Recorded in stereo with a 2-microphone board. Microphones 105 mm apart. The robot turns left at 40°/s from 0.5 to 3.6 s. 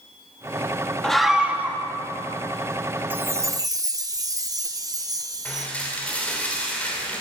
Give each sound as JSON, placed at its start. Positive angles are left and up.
{"t": 1.0, "sound": "a scream", "azimuth_deg": 5, "distance_m": 1.5}
{"t": 3.1, "sound": "a chime", "side_deg": -20, "distance_m": 0.7}
{"t": 5.5, "sound": "dishes clattering", "side_deg": 15, "distance_m": 3.0}